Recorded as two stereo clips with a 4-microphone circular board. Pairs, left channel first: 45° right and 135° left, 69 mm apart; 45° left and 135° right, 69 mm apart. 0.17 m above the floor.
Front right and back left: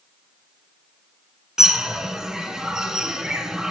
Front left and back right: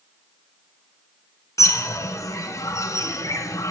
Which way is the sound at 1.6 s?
55° left.